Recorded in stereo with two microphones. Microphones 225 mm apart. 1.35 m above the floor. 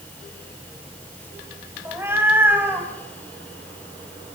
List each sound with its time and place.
1.9 s a cat meowing: 10° right (ahead or behind), 3 m; by 4.3 s 5° right (ahead or behind), 6 m